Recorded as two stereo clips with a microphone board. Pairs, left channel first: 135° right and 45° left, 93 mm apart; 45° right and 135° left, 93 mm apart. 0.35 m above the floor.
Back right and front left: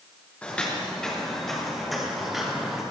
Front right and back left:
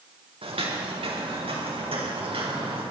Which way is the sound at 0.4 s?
145° left.